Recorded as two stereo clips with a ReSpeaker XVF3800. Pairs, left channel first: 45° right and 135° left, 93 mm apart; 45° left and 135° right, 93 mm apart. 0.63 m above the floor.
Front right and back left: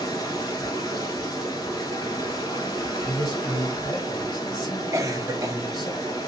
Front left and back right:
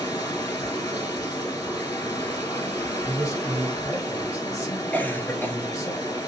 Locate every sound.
0.0 s running water: straight ahead, 1.8 m
3.0 s a man speaking: 5° right, 1.7 m
4.9 s a cough: 105° left, 0.8 m